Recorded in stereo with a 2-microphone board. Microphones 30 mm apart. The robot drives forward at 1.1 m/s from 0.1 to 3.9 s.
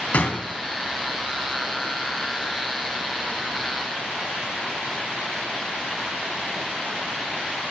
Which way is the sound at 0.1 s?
55° left (ahead or behind).